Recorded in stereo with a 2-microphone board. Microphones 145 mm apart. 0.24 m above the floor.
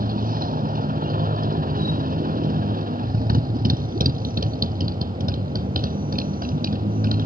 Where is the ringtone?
No ringtone in this recording.